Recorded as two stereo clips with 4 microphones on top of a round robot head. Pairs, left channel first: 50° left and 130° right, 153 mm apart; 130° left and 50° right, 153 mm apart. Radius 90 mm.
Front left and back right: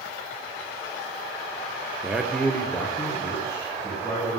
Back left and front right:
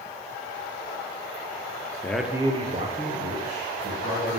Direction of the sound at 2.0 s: 175° left.